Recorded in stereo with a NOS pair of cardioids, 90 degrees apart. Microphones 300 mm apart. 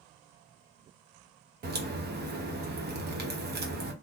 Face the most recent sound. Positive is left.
turn(degrees=-35)